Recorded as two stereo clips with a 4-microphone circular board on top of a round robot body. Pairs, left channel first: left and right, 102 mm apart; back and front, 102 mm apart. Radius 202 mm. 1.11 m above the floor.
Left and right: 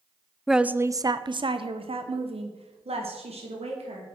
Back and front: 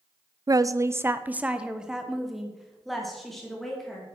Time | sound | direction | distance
0.5 | a woman speaking | straight ahead | 0.7 m